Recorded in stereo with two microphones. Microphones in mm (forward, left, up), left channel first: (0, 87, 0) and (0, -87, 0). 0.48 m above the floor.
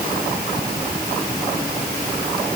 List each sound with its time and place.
Only background noise.